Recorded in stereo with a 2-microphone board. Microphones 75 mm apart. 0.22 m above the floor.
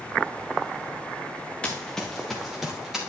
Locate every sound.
1.6 s running footsteps: 15° left (ahead or behind), 1.2 m; by 3.0 s 5° right (ahead or behind), 3 m